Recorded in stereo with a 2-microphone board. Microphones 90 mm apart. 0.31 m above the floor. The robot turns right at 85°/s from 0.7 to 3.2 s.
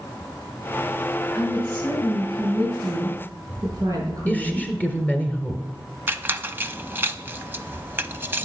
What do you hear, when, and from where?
1.4 s a woman speaking: 160° left, 5.5 m; by 4.7 s 40° right, 5.5 m
4.3 s a woman speaking: 20° left (ahead or behind), 1.5 m
6.1 s a squeak: 25° right (ahead or behind), 0.5 m